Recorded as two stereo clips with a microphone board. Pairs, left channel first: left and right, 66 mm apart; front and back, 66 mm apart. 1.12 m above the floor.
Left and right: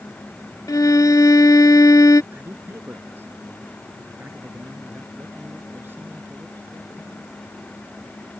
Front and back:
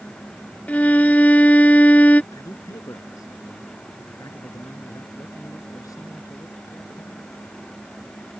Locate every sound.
0.7 s a violin: 65° left
2.3 s a man speaking: 30° right